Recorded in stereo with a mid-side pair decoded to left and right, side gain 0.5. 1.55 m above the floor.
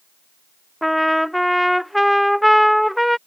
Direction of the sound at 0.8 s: Straight ahead.